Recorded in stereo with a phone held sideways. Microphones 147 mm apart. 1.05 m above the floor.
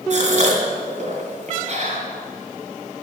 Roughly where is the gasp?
Right.